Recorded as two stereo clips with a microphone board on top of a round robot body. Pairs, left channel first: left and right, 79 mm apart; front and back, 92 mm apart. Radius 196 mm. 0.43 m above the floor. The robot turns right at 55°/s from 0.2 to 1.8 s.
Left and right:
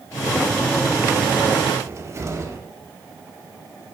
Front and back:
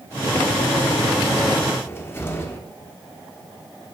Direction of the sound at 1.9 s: 55° right.